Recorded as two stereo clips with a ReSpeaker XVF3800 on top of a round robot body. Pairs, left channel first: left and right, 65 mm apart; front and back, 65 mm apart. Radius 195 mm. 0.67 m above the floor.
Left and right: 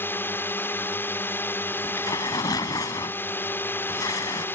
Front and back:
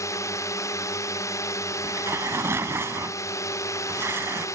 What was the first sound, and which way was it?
A drone, 35° left.